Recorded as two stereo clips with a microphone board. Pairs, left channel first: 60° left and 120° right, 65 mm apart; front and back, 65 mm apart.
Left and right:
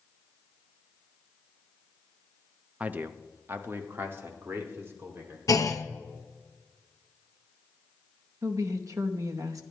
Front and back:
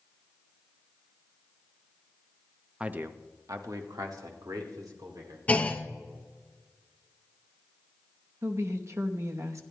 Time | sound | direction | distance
2.8 | a man speaking | 135° right | 0.5 m
5.5 | a clunk | 65° left | 0.7 m
8.4 | a woman speaking | 145° right | 0.9 m